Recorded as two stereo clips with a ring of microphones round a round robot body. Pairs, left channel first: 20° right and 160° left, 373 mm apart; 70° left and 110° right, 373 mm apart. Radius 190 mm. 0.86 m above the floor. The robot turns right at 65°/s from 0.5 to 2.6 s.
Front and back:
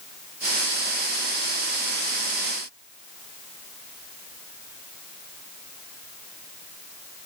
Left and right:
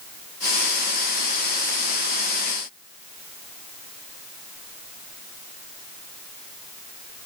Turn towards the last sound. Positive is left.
No sound to turn to.